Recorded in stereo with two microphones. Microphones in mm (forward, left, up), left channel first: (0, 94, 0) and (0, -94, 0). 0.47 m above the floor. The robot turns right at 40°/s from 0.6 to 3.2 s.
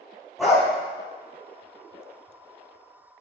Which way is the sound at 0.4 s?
Centre (ahead or behind).